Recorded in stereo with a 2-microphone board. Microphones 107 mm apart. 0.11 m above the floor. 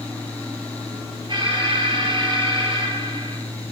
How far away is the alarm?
About 4 m.